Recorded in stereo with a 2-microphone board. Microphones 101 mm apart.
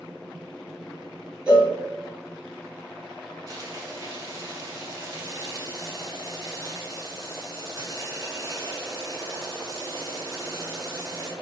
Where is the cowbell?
10° right (ahead or behind), 1.6 m.